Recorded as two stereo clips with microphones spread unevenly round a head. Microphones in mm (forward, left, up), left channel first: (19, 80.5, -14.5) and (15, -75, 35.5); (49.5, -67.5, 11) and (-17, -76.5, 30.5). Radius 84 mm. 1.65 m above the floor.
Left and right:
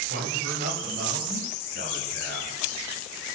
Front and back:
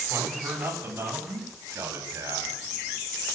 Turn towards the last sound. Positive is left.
turn(degrees=-135)